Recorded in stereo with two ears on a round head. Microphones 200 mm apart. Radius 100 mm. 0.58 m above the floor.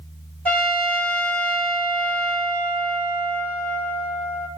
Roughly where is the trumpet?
Centre.